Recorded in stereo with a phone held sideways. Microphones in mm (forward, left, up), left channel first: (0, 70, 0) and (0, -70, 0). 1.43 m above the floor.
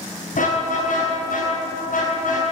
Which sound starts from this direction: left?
A car horn, at 0.3 s.